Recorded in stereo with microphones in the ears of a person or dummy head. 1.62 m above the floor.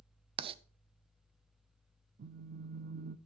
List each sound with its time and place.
0.4 s writing: 30° right (ahead or behind), 0.5 m
2.2 s a phone buzzing: 50° right (ahead or behind), 0.7 m